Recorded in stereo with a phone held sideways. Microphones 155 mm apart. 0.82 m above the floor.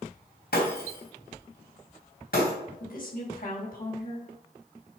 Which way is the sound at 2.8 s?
60° left (ahead or behind).